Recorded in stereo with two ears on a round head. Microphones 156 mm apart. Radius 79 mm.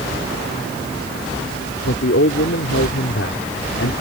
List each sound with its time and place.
1.8 s a man speaking: 75° left (ahead or behind)